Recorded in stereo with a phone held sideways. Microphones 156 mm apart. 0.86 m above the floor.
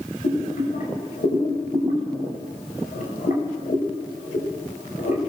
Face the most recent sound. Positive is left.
turn(degrees=70)  # may be behind; listen again after turning